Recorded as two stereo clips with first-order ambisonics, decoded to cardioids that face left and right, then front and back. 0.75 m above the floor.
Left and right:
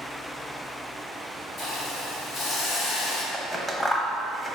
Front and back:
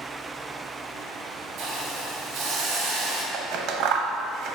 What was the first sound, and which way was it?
A hiss, 145° left.